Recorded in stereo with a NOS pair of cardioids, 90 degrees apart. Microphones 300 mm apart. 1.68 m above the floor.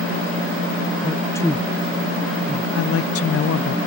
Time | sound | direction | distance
1.0 | a man speaking | 15° left | ?
2.8 | a woman speaking | 50° left | ?